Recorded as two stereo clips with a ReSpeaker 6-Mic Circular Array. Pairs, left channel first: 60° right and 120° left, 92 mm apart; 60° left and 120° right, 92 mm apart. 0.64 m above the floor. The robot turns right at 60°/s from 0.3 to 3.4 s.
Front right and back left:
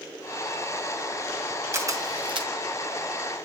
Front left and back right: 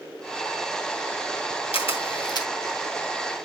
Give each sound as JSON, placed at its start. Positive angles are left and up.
{"t": 1.7, "sound": "a camera shutter", "azimuth_deg": 60, "distance_m": 2.0}